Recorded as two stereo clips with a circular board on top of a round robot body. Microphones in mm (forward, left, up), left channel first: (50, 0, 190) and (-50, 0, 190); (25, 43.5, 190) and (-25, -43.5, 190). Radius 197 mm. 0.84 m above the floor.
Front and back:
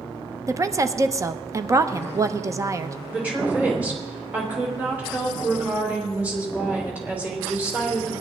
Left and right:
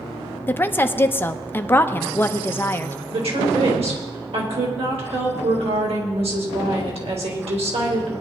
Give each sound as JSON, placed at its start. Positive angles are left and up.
{"t": 0.5, "sound": "a woman speaking", "azimuth_deg": 125, "distance_m": 1.0}
{"t": 3.1, "sound": "a woman speaking", "azimuth_deg": -105, "distance_m": 4.0}